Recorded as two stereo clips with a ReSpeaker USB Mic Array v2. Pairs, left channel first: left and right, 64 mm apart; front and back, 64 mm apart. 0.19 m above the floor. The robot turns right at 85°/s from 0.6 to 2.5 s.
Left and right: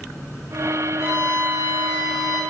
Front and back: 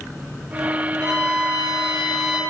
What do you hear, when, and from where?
1.0 s a violin: 60° left, 1.5 m; by 2.4 s straight behind, 1.5 m